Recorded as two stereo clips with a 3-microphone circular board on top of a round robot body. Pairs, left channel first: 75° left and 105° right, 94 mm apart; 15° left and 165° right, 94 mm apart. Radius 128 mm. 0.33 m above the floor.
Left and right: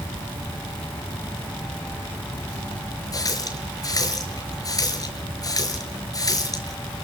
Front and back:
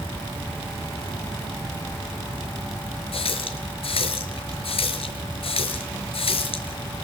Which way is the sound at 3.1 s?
25° left.